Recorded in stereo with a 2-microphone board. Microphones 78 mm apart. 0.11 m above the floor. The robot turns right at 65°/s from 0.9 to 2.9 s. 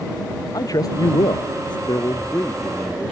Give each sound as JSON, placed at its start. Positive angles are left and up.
{"t": 0.5, "sound": "a man speaking", "azimuth_deg": 55}
{"t": 1.9, "sound": "a man speaking", "azimuth_deg": 115}